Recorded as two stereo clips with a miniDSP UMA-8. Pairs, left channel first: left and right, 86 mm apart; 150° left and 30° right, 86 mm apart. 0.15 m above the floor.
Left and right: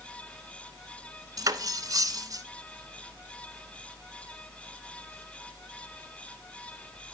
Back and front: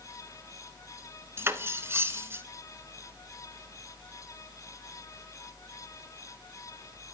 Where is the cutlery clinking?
80° right, 0.8 m.